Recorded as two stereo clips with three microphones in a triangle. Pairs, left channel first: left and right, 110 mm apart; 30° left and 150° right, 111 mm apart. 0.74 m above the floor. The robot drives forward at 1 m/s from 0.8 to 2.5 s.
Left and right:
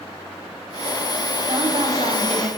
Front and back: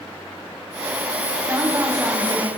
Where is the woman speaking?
85° right, 4.5 m; by 2.5 s 100° right, 4.5 m.